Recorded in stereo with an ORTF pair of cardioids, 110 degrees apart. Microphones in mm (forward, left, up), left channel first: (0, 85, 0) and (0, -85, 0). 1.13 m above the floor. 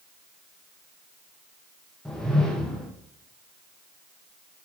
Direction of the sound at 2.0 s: 5° left.